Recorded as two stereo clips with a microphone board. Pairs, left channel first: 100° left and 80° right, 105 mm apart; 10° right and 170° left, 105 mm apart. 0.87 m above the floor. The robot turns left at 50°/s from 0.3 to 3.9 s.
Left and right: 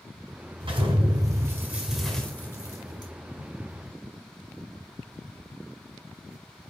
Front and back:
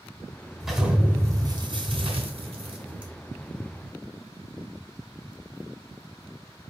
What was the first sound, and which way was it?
An explosion, 100° right.